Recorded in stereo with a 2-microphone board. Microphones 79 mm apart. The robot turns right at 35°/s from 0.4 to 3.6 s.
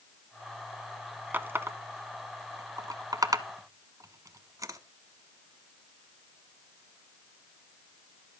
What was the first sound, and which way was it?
A running tap, 25° right (ahead or behind).